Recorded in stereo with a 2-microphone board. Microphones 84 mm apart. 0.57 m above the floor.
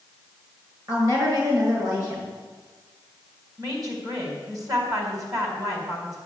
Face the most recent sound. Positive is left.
turn(degrees=-40)  # may be behind; listen again after turning